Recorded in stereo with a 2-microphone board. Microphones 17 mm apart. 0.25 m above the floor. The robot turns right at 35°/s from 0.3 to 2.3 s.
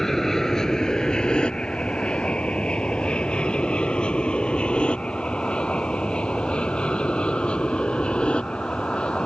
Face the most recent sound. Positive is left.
turn(degrees=80)